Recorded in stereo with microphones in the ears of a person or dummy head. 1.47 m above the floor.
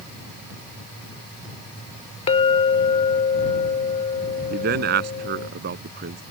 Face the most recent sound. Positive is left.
turn(degrees=-60)  # may be behind; listen again after turning